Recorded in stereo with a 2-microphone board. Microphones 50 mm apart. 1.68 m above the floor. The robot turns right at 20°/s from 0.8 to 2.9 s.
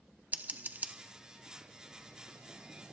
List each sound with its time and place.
0.3 s scissors: 35° right (ahead or behind), 0.8 m; by 0.9 s 30° right (ahead or behind), 0.8 m